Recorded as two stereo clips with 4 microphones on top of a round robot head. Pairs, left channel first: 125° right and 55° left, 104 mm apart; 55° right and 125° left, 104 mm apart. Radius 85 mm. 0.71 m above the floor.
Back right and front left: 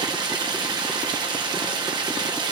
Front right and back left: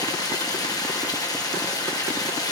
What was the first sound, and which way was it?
Running water, 5° left.